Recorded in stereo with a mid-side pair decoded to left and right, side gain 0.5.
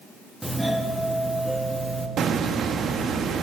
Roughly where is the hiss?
Ahead right.